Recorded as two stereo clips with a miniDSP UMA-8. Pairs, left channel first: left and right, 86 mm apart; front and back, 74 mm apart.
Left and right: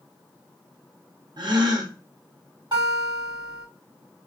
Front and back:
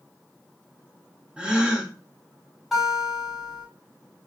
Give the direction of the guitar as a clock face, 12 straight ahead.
3 o'clock.